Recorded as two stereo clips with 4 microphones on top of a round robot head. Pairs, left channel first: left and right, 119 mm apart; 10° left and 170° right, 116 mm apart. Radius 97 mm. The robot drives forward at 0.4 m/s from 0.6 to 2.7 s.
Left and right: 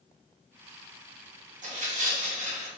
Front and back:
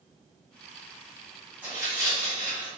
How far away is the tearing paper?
About 0.9 m.